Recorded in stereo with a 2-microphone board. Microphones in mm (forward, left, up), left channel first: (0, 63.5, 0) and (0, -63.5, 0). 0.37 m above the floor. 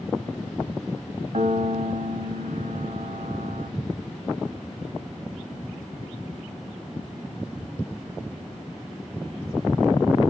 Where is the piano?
70° right (ahead or behind), 1.0 m.